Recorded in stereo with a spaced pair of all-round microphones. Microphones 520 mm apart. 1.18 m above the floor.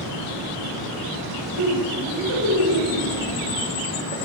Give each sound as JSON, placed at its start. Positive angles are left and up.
{"t": 1.6, "sound": "laughter", "side_deg": -60, "distance_m": 10.0}